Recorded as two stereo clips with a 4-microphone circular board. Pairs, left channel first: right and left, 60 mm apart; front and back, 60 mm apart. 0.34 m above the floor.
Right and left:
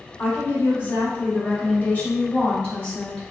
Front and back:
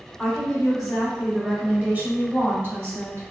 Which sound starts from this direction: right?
A woman speaking, at 0.2 s.